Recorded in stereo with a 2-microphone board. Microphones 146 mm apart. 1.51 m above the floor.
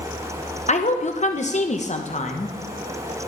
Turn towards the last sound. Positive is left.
turn(degrees=50)  # may be behind; listen again after turning